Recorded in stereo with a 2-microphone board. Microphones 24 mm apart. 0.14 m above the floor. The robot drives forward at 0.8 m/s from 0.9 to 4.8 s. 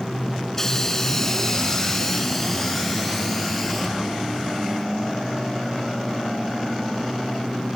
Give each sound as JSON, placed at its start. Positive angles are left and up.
{"t": 0.5, "sound": "a hiss", "side_deg": 15, "distance_m": 1.1}